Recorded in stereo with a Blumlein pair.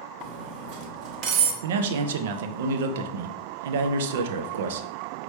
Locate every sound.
0.2 s cutlery clinking: 35° right, 0.9 m
1.6 s a man speaking: 55° right, 0.6 m